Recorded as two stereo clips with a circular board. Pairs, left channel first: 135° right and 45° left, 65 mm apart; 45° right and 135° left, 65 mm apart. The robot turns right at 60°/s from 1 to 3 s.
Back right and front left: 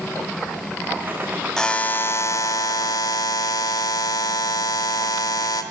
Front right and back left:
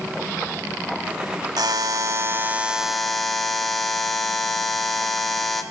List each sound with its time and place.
1.6 s a buzzer: 145° left, 0.7 m; by 5.6 s 130° right, 0.7 m